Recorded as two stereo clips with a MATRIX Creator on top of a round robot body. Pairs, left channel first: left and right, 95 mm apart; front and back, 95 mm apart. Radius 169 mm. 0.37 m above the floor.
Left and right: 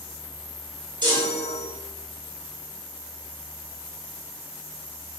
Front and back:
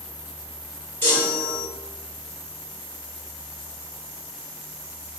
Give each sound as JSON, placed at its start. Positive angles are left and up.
{"t": 1.0, "sound": "a chime", "azimuth_deg": -65, "distance_m": 2.0}